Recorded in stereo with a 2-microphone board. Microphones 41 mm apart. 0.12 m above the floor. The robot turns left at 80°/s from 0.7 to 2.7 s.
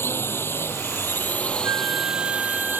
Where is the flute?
100° right; by 2.8 s 175° left.